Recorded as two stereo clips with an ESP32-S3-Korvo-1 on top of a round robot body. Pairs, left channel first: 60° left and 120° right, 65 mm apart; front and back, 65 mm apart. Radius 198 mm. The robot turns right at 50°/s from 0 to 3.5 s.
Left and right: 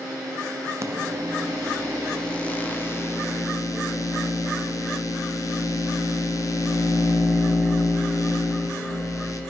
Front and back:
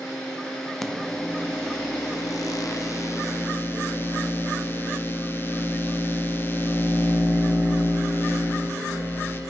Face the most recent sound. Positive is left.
turn(degrees=50)